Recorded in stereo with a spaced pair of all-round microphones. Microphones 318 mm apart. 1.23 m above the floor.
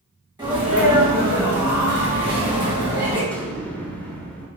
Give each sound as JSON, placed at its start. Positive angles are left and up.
{"t": 0.4, "sound": "a sneeze", "side_deg": -15, "distance_m": 2.0}
{"t": 3.3, "sound": "an explosion", "side_deg": 5, "distance_m": 1.0}